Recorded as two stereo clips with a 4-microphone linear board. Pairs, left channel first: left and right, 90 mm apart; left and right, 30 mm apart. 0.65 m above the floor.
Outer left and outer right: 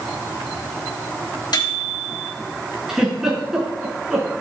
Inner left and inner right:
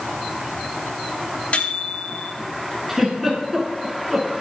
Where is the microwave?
55° left (ahead or behind), 4 m.